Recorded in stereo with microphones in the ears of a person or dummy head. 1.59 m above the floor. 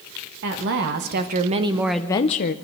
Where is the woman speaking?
60° right (ahead or behind), 1.7 m; by 2.5 s 50° left (ahead or behind), 0.8 m.